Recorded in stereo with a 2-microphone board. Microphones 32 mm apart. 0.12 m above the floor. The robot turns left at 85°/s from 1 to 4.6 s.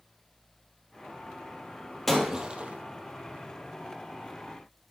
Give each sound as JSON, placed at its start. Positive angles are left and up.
{"t": 2.1, "sound": "breaking glass", "azimuth_deg": 5, "distance_m": 1.9}